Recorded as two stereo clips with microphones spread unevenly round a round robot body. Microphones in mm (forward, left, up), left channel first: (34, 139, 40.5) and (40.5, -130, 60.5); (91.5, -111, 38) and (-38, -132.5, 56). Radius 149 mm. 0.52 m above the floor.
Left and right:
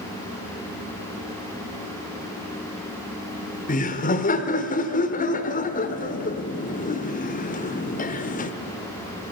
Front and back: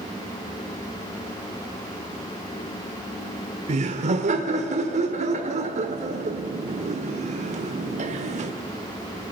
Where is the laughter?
145° left, 1.3 m.